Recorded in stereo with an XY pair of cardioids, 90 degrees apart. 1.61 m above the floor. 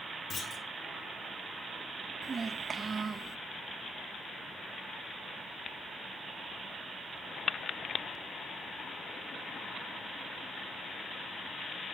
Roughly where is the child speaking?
Ahead right.